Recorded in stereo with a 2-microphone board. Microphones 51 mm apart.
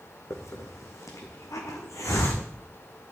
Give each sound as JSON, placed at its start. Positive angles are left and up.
{"t": 0.3, "sound": "a hiss", "side_deg": 85, "distance_m": 2.5}